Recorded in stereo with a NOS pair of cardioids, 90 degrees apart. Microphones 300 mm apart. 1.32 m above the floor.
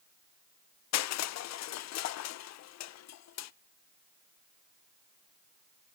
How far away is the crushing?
About 0.5 m.